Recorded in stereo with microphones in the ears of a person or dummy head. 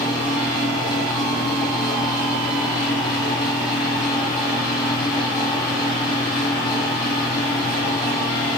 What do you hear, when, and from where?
0.0 s a fan: 20° left (ahead or behind), 2.5 m